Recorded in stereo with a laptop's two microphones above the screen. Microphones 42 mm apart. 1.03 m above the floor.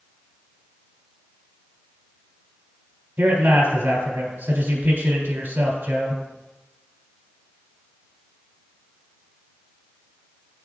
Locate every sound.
3.2 s a man speaking: 50° right (ahead or behind), 3 m